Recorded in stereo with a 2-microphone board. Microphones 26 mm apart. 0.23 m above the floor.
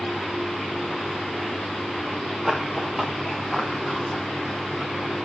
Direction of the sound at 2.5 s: 5° right (ahead or behind).